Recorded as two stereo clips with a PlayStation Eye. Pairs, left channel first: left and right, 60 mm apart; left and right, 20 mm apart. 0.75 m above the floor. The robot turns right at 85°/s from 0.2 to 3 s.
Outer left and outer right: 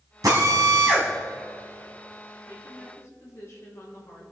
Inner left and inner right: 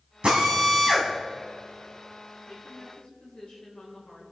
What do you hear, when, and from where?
0.2 s a drill: 100° right, 3 m; by 1.1 s 30° right, 3 m
2.5 s a woman speaking: 80° left, 3.5 m; by 4.2 s 125° left, 3.5 m